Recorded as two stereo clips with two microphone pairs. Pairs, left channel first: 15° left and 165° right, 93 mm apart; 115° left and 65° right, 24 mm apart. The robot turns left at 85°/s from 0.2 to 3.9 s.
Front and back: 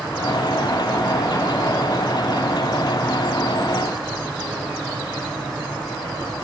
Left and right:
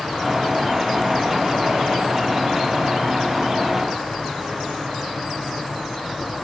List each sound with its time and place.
Only background noise.